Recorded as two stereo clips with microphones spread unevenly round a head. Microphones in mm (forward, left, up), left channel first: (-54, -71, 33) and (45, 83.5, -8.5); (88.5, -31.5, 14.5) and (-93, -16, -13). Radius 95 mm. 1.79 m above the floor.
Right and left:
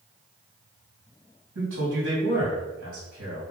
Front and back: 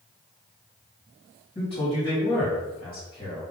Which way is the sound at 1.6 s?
55° left.